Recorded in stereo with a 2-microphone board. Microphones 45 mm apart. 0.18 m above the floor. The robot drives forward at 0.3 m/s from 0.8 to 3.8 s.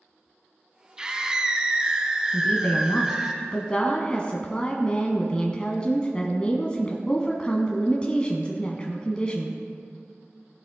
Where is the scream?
15° right (ahead or behind), 1.0 m.